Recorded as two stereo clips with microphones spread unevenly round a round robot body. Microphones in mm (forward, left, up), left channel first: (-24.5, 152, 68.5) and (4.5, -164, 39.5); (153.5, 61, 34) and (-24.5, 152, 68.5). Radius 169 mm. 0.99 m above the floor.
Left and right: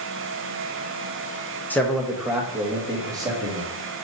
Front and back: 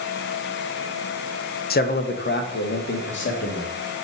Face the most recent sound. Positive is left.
turn(degrees=-10)